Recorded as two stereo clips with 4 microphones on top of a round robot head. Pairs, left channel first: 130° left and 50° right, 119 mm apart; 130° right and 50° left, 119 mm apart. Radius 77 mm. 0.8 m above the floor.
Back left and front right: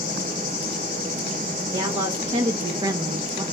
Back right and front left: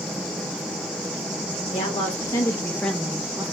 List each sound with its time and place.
1.7 s a woman speaking: 90° right, 1.2 m; by 3.4 s straight ahead, 0.7 m